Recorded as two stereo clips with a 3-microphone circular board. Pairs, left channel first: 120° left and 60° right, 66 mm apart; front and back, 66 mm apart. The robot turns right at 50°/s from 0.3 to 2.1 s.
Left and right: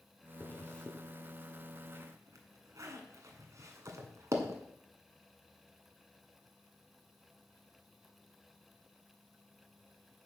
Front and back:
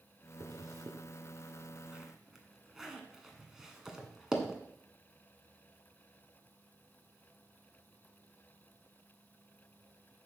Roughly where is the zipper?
Behind.